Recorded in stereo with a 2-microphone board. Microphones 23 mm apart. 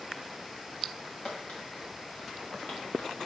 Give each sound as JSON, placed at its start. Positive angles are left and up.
{"t": 1.0, "sound": "footsteps", "side_deg": 50, "distance_m": 3.5}